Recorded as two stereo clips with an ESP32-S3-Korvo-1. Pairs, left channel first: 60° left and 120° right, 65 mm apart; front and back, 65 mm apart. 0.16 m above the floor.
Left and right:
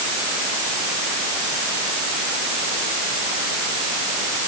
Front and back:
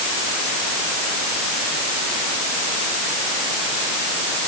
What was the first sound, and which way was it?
Only background noise.